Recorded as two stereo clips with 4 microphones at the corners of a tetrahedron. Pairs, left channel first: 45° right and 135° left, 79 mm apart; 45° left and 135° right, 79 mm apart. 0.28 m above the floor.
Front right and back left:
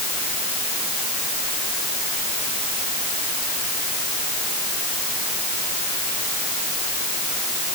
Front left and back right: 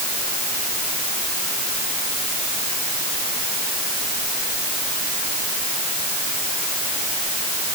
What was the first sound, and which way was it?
Only background noise.